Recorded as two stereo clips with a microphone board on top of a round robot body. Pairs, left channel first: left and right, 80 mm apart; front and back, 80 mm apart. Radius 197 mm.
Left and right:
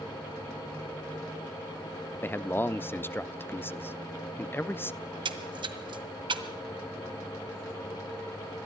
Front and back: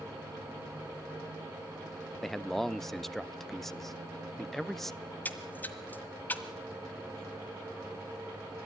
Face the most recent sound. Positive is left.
turn(degrees=-70)